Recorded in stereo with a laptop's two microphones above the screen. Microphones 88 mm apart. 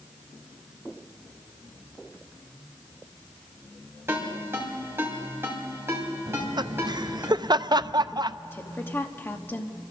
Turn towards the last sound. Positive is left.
turn(degrees=25)  # may be behind; listen again after turning